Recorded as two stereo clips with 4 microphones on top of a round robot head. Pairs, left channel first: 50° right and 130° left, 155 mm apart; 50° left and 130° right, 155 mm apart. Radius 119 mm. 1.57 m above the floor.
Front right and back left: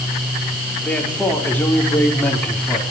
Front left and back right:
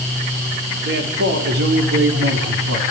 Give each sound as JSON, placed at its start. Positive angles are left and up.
{"t": 0.8, "sound": "a man speaking", "azimuth_deg": -130, "distance_m": 6.0}